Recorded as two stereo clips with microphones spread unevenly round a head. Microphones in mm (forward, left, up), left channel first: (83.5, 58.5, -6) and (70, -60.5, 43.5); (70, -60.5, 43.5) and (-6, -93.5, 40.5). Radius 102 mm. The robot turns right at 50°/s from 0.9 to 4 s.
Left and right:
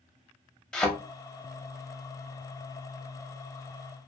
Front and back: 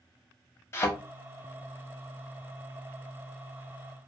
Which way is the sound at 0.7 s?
20° right.